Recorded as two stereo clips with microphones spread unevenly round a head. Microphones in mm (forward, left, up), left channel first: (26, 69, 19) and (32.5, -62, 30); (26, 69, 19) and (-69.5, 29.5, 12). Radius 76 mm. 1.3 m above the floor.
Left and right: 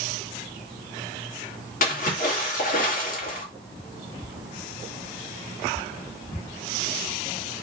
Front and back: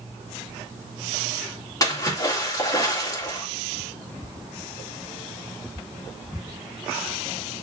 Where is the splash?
75° left, 3 m.